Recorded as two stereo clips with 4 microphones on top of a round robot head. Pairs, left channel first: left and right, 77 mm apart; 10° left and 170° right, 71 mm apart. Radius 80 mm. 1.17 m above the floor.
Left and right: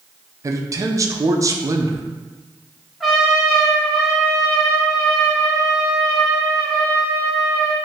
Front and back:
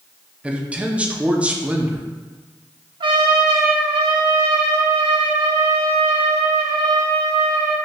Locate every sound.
0.4 s a man speaking: 100° right, 0.6 m
3.0 s a trumpet: straight behind, 1.0 m